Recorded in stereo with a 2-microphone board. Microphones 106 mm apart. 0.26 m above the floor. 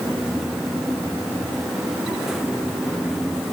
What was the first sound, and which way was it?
Only background noise.